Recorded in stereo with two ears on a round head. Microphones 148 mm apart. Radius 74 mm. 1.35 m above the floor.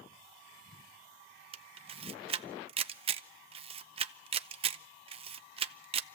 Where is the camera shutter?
35° right (ahead or behind), 0.7 m.